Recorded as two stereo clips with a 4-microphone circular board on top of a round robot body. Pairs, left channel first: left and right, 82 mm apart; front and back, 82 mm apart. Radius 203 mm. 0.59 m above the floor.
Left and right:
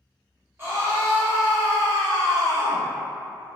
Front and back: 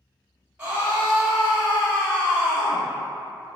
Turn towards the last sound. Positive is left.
turn(degrees=-60)